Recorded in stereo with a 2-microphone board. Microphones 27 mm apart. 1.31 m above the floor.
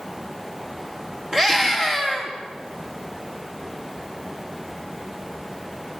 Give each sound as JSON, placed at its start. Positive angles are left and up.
{"t": 1.3, "sound": "a scream", "side_deg": -25, "distance_m": 3.0}